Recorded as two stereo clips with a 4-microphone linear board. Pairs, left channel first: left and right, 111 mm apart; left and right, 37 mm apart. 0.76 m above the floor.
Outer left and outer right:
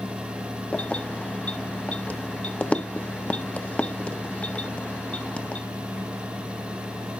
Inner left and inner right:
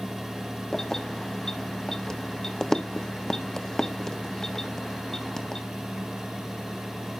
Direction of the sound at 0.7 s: 10° left (ahead or behind).